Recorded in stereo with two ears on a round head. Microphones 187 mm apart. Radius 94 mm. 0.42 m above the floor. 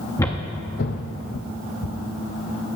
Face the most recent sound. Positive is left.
turn(degrees=40)  # may be behind; listen again after turning